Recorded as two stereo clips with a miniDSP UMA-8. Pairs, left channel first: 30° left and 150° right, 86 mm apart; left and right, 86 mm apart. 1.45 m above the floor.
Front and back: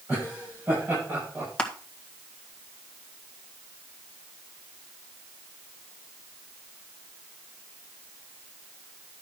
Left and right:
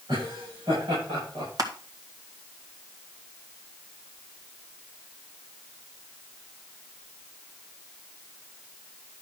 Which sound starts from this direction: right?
Laughter, at 0.1 s.